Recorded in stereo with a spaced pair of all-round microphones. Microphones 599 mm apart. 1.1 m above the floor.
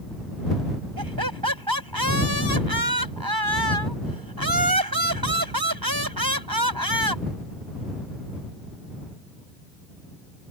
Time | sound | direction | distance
1.0 | laughter | 35° right (ahead or behind) | ?